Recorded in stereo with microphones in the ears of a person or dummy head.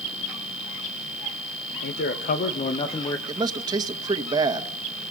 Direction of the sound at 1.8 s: 55° left (ahead or behind).